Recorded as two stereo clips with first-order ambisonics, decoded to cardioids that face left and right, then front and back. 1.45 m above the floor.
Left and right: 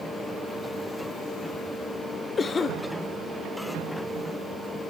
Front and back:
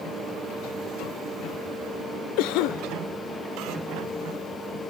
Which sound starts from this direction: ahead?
A cough, at 2.4 s.